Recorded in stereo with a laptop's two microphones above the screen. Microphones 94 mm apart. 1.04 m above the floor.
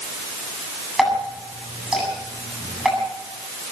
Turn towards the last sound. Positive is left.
turn(degrees=-5)  # may be behind; listen again after turning